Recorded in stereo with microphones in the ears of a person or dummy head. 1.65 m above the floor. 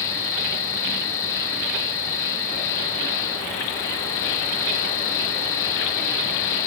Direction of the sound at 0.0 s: 15° left (ahead or behind).